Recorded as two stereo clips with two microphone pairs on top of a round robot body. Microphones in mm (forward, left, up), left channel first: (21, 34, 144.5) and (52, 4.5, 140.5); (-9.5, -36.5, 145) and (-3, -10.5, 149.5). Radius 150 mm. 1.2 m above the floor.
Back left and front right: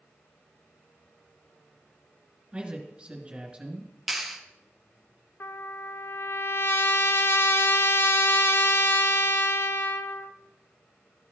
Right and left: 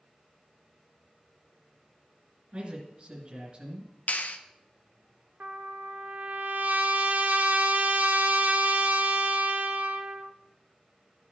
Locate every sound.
2.5 s a man speaking: 15° left, 2 m
4.1 s a clap: 135° right, 0.7 m
5.4 s a trumpet: 105° left, 0.6 m